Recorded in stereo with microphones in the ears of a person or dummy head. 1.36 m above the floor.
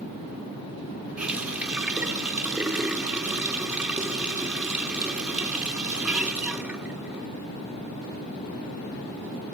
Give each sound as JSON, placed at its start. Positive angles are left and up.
{"t": 1.2, "sound": "a running tap", "side_deg": 0, "distance_m": 0.7}